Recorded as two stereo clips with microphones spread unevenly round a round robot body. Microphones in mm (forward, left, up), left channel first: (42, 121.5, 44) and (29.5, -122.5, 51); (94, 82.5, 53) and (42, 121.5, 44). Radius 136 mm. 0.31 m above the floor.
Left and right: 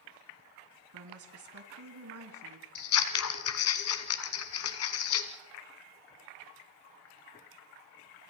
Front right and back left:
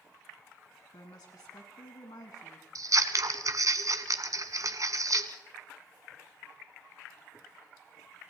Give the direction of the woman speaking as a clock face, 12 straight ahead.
2 o'clock.